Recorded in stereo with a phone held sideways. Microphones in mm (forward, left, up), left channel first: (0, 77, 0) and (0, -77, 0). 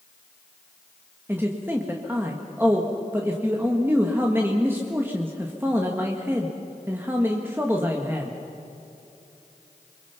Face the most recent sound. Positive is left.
turn(degrees=-15)  # may be behind; listen again after turning